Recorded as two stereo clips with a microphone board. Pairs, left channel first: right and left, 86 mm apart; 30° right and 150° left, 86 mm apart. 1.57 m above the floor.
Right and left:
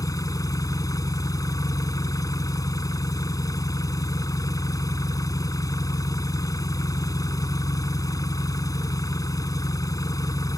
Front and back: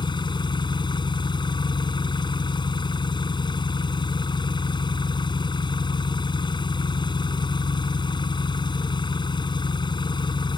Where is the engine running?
50° right.